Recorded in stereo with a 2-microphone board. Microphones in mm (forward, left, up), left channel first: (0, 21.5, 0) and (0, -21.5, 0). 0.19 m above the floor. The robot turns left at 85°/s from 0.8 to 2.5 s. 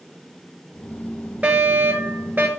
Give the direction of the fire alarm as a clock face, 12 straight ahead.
1 o'clock.